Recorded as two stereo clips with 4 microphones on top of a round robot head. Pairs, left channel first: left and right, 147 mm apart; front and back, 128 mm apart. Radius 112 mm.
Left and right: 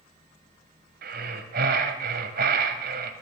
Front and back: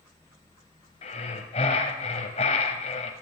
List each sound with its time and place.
1.0 s breathing: 55° right, 0.9 m